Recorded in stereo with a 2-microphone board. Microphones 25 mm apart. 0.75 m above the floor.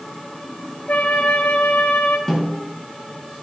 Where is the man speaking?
I don't hear a man speaking.